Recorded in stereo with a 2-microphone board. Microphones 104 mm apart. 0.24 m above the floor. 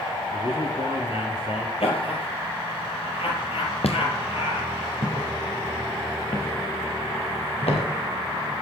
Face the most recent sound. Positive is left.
turn(degrees=85)